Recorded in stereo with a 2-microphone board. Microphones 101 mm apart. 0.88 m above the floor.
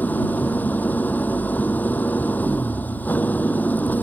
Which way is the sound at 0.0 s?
15° left (ahead or behind).